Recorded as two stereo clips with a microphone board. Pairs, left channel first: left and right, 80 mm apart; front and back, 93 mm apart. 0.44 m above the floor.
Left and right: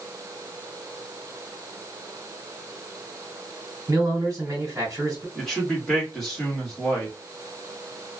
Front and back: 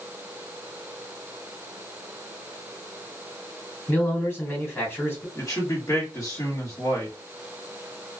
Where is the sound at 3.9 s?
55° right, 1.7 m.